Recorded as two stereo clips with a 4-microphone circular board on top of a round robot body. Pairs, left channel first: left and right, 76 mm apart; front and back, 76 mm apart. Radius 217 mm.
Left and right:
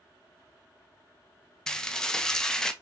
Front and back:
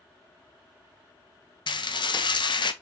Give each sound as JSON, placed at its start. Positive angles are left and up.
{"t": 1.7, "sound": "dishes clattering", "azimuth_deg": 10, "distance_m": 0.7}